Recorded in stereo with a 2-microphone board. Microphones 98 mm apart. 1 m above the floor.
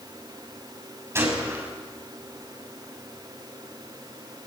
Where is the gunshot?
30° right (ahead or behind), 5.5 m.